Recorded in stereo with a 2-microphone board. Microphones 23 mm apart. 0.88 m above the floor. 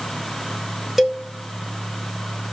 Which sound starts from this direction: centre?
A cowbell, at 1.0 s.